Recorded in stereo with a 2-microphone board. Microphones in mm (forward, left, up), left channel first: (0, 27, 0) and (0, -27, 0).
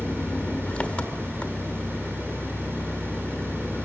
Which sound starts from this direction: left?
An engine running, at 0.0 s.